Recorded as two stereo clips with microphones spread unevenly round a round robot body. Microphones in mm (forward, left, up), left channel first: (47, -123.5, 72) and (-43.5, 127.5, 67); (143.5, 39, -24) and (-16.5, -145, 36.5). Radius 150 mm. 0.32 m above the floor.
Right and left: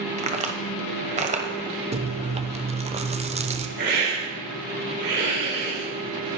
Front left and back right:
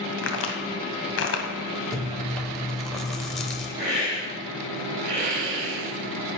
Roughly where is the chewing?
Left.